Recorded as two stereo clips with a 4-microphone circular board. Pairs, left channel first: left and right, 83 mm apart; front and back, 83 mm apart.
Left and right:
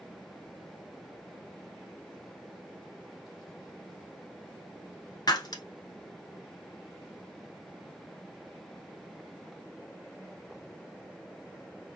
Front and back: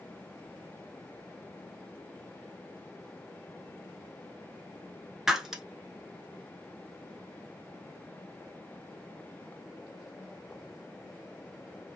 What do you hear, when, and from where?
5.3 s breaking glass: 95° left, 1.0 m